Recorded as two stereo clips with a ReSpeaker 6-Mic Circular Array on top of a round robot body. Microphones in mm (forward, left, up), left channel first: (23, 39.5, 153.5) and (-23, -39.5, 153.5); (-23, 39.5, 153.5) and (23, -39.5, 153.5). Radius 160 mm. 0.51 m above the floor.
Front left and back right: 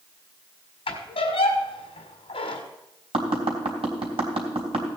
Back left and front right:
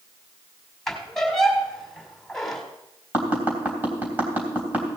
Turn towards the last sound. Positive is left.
turn(degrees=-130)